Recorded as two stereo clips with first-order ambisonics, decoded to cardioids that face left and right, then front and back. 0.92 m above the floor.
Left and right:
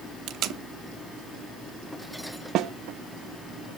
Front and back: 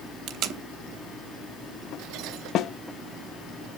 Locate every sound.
0.3 s tape being pulled: 140° right, 0.8 m
2.5 s a snare drum: 45° right, 0.6 m